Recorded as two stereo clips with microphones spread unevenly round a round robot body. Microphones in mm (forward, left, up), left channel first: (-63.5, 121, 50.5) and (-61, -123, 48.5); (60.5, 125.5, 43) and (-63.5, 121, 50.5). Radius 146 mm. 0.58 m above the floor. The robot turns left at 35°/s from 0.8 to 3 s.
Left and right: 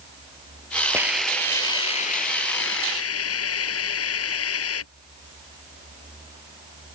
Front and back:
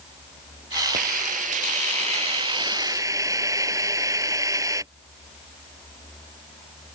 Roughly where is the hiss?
Behind.